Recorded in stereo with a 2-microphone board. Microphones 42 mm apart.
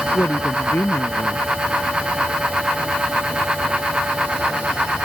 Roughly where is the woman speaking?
Left.